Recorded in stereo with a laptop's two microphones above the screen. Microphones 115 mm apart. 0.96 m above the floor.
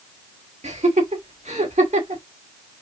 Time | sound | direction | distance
0.6 | laughter | 80° right | 2.0 m